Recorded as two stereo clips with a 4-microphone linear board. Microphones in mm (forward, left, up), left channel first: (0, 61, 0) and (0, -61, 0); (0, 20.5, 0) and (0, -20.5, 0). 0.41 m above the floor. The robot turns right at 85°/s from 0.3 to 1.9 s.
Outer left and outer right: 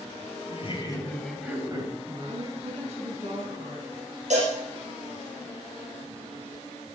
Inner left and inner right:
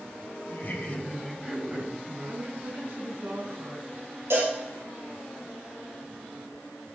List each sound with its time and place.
0.5 s laughter: 110° left, 2.5 m; by 2.6 s 130° right, 2.5 m
2.3 s a woman speaking: 75° right (ahead or behind), 4 m
4.3 s a cowbell: 75° right (ahead or behind), 5.5 m